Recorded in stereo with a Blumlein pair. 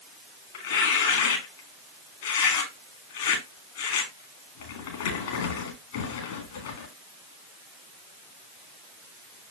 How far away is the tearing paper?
About 3 m.